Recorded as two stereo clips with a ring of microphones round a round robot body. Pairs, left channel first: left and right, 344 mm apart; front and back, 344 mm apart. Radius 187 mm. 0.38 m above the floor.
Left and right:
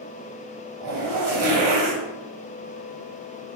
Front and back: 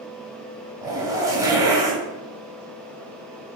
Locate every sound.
0.8 s a zipper: 100° right, 2.5 m